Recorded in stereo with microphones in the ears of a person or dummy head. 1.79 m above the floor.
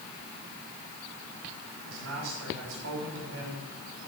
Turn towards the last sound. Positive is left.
turn(degrees=-75)  # may be behind; listen again after turning